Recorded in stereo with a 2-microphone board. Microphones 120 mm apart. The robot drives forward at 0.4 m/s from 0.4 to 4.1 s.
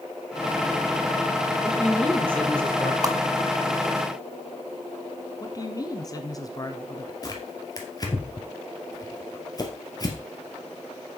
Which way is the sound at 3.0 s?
30° right (ahead or behind).